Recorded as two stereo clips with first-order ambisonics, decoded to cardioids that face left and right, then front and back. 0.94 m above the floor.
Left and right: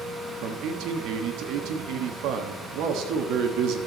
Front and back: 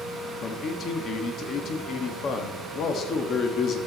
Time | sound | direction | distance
0.4 | a man speaking | 55° right | 1.3 m